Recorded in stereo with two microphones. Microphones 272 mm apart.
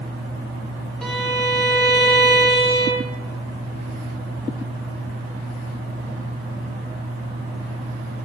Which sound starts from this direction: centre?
A violin, at 1.0 s.